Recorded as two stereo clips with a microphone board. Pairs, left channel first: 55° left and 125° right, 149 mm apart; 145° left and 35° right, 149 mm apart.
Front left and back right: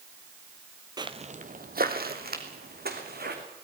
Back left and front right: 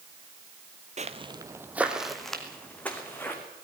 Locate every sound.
1.0 s footsteps: 65° right, 1.0 m; by 3.4 s 135° right, 3.5 m